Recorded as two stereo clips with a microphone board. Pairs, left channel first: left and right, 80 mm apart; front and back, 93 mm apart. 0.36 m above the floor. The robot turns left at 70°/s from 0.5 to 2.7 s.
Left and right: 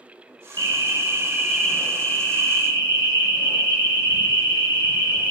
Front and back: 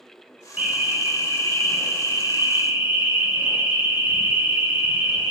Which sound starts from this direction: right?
An alarm, at 0.6 s.